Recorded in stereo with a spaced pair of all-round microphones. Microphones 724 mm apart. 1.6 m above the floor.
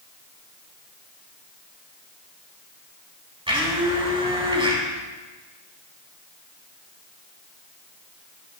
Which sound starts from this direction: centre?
A blender, at 3.5 s.